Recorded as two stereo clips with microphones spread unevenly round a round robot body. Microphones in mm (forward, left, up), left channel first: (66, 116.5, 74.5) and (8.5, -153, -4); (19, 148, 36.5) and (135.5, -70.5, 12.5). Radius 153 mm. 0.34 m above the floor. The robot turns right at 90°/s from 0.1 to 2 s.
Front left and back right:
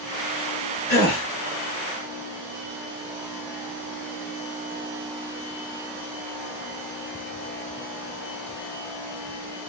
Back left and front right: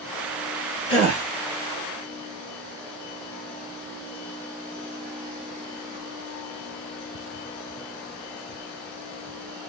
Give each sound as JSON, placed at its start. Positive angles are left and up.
{"t": 0.9, "sound": "a gasp", "azimuth_deg": 125, "distance_m": 1.6}